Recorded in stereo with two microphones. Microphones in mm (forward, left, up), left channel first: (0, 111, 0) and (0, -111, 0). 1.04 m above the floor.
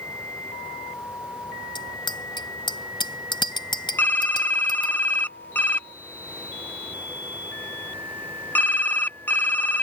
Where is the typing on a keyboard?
10° left (ahead or behind).